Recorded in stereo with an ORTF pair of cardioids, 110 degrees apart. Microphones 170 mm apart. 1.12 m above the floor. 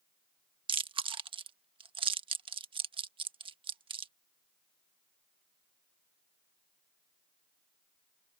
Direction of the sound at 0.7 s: 30° right.